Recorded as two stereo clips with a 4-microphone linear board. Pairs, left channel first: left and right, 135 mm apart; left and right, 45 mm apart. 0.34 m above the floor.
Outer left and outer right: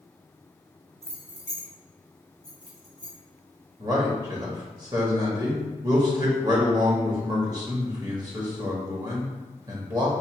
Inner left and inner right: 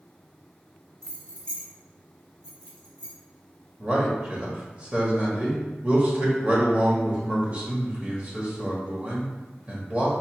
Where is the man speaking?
30° right (ahead or behind), 1.1 m.